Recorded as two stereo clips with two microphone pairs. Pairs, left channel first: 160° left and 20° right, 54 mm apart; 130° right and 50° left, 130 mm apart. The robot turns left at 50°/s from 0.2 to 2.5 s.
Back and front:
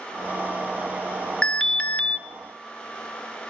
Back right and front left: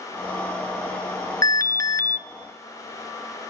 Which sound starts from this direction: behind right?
An alarm, at 1.4 s.